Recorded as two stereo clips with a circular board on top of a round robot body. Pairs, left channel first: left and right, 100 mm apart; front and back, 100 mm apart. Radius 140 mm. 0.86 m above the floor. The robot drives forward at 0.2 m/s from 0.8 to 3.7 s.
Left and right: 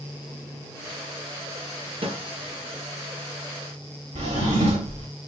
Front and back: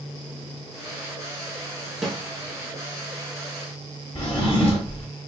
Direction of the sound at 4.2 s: 75° right.